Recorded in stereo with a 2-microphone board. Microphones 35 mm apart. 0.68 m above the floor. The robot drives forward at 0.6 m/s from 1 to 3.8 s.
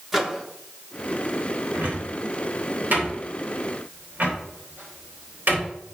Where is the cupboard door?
65° right (ahead or behind), 3 m.